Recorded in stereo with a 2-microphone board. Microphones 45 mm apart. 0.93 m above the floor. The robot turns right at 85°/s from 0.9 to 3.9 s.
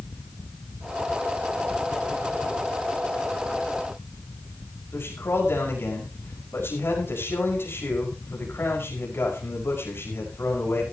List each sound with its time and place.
4.9 s a man speaking: 60° left (ahead or behind), 5.5 m